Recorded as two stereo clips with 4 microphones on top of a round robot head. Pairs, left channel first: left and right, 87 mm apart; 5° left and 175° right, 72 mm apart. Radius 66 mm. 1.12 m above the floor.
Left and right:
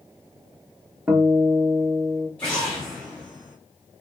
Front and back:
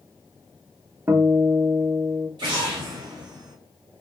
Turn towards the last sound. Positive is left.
turn(degrees=170)